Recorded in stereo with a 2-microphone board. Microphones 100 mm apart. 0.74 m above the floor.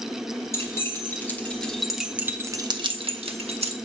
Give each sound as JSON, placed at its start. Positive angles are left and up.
{"t": 0.5, "sound": "keys jangling", "side_deg": 30, "distance_m": 1.5}